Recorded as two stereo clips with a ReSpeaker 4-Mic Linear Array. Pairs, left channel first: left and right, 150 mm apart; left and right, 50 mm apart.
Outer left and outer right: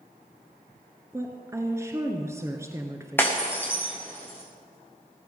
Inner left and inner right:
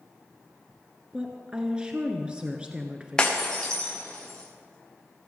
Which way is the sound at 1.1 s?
20° right (ahead or behind).